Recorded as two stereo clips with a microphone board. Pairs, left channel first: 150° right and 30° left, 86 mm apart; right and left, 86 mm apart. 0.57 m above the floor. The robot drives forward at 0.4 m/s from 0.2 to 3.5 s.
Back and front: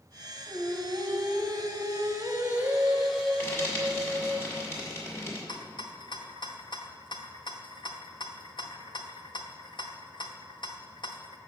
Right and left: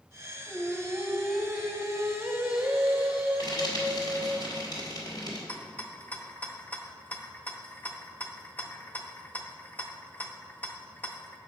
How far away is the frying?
About 1.8 m.